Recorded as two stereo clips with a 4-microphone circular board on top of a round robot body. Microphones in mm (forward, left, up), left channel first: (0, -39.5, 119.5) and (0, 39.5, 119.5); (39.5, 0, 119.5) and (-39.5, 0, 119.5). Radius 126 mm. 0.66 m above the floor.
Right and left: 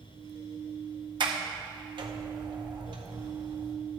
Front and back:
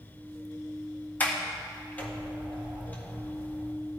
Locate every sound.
1.2 s a sliding door: 70° left, 1.7 m